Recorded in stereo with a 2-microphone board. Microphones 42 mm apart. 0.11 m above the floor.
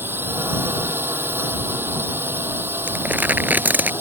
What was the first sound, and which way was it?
A drone, 60° right (ahead or behind).